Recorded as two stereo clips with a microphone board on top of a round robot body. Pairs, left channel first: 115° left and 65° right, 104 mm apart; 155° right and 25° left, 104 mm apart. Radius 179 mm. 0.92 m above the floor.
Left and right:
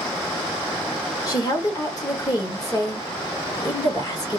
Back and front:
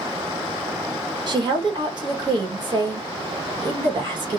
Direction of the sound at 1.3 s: 60° left.